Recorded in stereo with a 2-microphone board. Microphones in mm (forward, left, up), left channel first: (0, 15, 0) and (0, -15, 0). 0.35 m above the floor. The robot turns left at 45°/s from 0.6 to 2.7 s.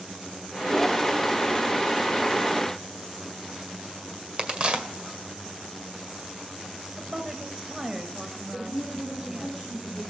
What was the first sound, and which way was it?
A crack, 35° right (ahead or behind).